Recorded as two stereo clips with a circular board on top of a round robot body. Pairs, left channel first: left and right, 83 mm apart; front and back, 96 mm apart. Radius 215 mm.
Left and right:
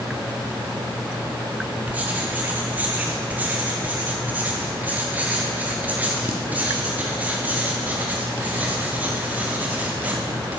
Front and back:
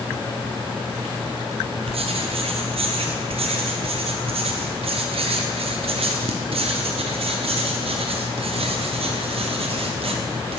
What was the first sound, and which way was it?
Writing, 160° right.